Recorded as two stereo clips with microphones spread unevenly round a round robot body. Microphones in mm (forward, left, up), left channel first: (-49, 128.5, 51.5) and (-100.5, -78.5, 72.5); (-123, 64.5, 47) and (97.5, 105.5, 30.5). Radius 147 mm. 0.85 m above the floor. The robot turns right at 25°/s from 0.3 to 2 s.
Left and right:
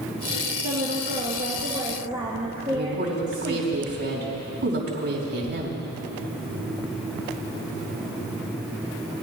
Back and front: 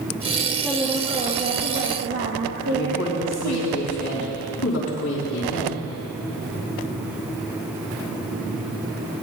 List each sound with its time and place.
0.6 s a woman speaking: 65° right, 1.0 m; by 3.7 s 30° right, 1.0 m
2.7 s a woman speaking: 125° right, 3.5 m